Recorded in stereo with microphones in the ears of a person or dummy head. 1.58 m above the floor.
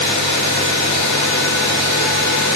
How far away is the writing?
I don't hear writing.